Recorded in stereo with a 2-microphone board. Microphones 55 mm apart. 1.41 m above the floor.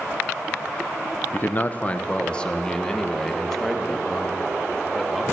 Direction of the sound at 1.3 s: 35° left (ahead or behind).